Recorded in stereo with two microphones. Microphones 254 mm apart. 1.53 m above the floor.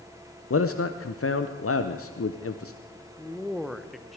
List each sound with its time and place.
0.5 s a man speaking: 60° left (ahead or behind), 0.7 m
3.2 s a man speaking: centre (ahead or behind), 0.9 m